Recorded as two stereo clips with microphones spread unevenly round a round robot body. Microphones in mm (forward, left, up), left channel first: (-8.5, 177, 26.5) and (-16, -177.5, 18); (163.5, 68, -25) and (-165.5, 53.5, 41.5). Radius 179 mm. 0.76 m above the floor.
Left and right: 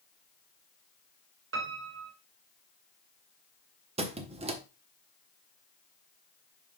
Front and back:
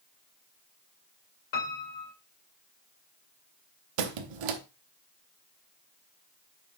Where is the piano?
35° right, 1.8 m.